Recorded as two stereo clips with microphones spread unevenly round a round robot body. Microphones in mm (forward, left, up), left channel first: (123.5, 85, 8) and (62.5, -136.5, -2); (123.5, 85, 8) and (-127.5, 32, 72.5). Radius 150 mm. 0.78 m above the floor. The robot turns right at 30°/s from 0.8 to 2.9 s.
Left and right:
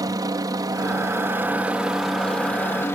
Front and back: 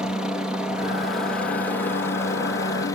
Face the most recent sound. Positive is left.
turn(degrees=5)